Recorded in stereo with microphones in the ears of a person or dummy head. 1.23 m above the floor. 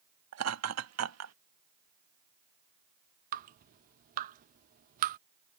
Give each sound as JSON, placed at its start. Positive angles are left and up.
{"t": 0.3, "sound": "laughter", "side_deg": -80}
{"t": 3.3, "sound": "dripping", "side_deg": -45}